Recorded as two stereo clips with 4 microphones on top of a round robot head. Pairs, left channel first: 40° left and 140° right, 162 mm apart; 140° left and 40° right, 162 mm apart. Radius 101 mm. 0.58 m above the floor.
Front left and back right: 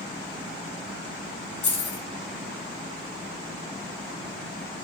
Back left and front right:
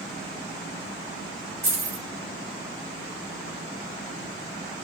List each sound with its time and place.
1.6 s keys jangling: 30° left, 2 m